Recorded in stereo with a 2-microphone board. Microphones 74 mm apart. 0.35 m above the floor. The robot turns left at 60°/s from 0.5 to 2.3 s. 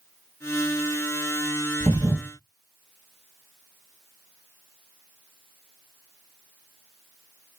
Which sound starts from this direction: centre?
A thud, at 1.8 s.